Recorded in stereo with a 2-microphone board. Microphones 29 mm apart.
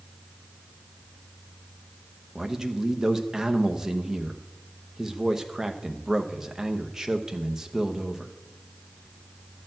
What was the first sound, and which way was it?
A man speaking, 15° right (ahead or behind).